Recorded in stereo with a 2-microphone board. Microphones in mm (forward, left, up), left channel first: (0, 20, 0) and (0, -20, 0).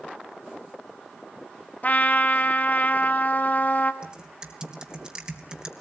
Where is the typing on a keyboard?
20° right (ahead or behind), 3 m.